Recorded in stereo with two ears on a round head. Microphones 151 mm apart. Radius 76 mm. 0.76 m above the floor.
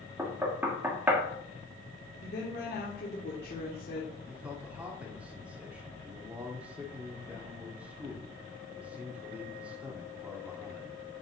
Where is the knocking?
10° right (ahead or behind), 1.3 m.